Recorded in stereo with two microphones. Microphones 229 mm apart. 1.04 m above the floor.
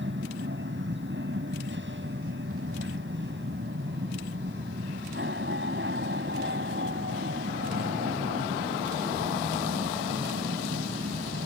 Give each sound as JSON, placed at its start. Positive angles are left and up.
{"t": 0.0, "sound": "an aircraft", "side_deg": -50}